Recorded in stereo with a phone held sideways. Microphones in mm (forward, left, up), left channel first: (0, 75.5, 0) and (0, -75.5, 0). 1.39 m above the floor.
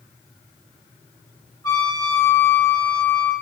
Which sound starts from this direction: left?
A trumpet, at 1.6 s.